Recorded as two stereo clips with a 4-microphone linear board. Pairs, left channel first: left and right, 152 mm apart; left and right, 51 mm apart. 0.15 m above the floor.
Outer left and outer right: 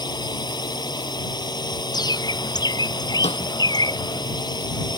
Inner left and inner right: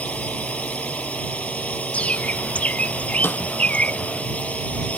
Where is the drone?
30° left (ahead or behind).